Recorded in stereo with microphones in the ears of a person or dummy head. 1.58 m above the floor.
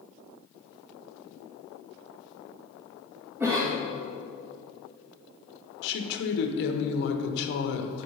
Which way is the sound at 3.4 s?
10° right (ahead or behind).